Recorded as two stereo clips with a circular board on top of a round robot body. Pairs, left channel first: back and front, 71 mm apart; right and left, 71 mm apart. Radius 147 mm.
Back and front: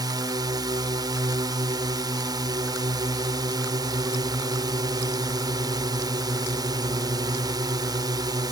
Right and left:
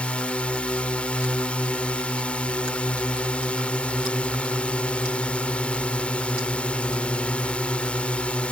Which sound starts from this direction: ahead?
A drone, at 0.0 s.